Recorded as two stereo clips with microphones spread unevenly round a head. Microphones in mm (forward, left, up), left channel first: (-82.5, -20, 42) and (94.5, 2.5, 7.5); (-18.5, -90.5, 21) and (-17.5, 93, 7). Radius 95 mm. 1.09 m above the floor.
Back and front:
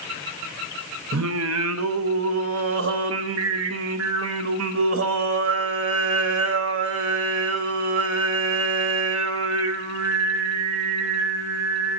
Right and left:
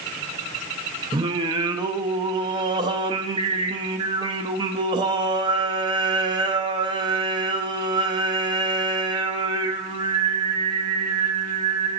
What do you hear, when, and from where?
1.1 s singing: 20° left, 0.6 m